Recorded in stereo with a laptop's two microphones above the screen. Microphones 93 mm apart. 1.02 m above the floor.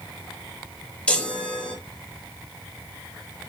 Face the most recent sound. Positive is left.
turn(degrees=15)  # may be behind; listen again after turning